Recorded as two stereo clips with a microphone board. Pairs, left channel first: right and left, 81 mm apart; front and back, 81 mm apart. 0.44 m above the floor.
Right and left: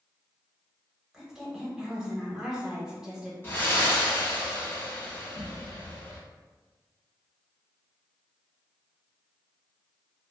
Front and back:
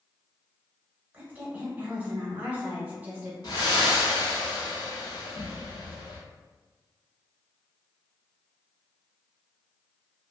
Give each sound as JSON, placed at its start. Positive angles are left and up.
{"t": 1.1, "sound": "a woman speaking", "azimuth_deg": 160, "distance_m": 1.0}
{"t": 3.4, "sound": "breathing", "azimuth_deg": -25, "distance_m": 0.9}